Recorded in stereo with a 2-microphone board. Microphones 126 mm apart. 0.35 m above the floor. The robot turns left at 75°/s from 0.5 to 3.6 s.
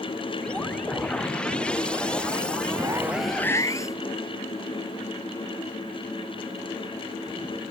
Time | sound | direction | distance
2.7 | a zipper | 140° right | ?